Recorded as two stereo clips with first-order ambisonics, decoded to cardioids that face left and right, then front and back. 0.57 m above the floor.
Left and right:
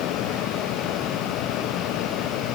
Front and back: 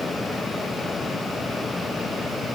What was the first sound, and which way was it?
Only background noise.